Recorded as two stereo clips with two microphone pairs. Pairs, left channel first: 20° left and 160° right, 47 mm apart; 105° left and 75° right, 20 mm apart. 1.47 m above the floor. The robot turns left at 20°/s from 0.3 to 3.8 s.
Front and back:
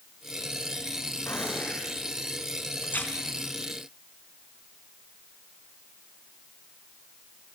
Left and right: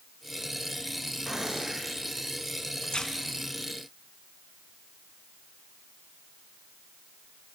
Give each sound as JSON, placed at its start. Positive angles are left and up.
{"t": 1.3, "sound": "a gunshot", "azimuth_deg": -10, "distance_m": 8.0}
{"t": 2.8, "sound": "tearing paper", "azimuth_deg": 65, "distance_m": 3.0}